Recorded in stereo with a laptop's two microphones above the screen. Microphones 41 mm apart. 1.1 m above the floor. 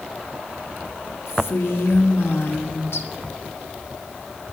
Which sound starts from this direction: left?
A woman speaking, at 1.3 s.